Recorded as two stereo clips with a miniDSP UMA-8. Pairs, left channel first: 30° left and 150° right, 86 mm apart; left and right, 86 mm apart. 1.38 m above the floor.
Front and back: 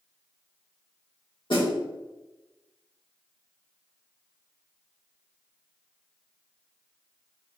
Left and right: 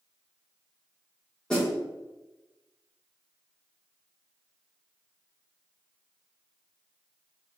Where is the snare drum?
10° left, 1.5 m.